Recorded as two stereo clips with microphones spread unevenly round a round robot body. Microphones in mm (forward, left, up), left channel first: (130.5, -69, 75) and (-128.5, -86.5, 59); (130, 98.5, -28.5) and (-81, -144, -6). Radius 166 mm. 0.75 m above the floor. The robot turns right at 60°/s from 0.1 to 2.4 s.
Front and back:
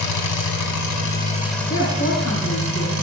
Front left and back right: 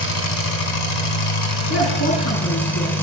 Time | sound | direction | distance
0.0 | an engine running | straight ahead | 1.8 m
1.7 | a woman speaking | 60° left | 6.5 m